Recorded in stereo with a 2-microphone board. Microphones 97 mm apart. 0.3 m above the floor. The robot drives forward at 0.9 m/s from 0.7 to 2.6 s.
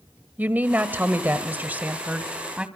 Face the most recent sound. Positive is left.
turn(degrees=-10)  # may be behind; listen again after turning